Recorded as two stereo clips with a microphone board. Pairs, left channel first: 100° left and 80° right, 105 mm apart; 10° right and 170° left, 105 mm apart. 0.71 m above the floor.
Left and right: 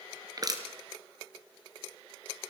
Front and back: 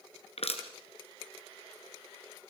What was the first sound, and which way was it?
Crushing, 25° right.